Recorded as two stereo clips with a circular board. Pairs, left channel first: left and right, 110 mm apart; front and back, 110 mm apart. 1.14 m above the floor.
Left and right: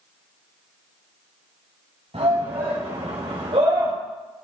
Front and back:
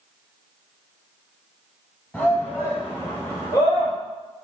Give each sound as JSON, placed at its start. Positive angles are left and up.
{"t": 2.1, "sound": "a shout", "azimuth_deg": -75, "distance_m": 5.0}